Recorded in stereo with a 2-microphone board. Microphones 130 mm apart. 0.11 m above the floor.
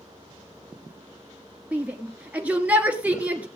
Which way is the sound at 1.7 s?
10° right (ahead or behind).